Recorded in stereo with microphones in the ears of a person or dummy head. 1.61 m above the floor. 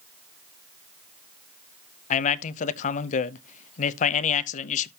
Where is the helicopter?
No helicopter in this recording.